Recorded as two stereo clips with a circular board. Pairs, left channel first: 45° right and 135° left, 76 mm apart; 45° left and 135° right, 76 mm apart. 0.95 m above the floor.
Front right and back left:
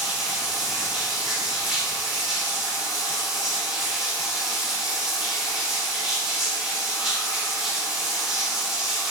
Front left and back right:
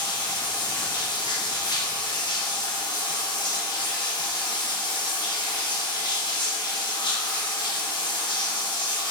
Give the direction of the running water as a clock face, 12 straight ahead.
10 o'clock.